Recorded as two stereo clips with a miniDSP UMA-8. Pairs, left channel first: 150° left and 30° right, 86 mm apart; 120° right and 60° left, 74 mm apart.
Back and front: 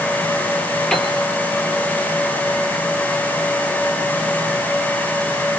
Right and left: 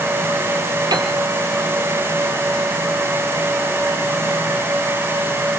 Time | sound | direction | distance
0.9 | a piano | 70° left | 3 m